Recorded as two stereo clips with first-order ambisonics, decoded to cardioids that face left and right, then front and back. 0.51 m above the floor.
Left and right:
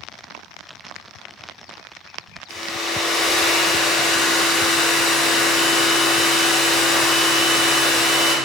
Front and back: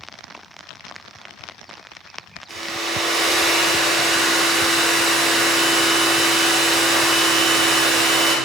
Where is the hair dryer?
125° left, 0.8 m.